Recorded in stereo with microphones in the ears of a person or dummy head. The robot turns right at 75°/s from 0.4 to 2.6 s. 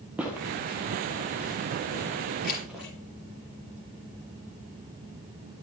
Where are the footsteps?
10° right (ahead or behind), 1.6 m; by 2.8 s centre (ahead or behind), 2.5 m.